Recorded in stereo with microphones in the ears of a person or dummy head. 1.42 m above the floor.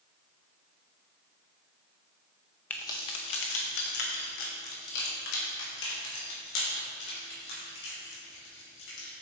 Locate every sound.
2.7 s keys jangling: 20° left (ahead or behind), 0.8 m; by 9.1 s 80° left, 5.5 m